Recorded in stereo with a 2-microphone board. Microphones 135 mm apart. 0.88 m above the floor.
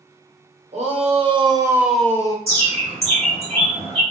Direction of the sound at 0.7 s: 55° right (ahead or behind).